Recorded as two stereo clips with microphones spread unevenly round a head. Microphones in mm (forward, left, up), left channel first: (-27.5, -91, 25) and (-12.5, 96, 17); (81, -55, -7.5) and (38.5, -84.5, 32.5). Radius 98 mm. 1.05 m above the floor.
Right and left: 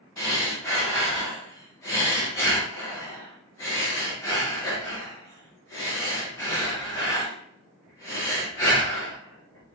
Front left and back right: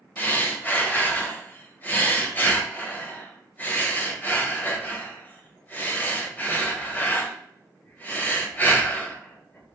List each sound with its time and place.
0.2 s breathing: 20° right, 0.9 m